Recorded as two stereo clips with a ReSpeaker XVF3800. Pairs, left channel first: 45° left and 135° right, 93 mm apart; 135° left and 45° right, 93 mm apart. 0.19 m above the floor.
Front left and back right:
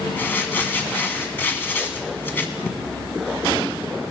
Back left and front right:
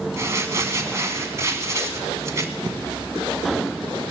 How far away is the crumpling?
About 1.5 m.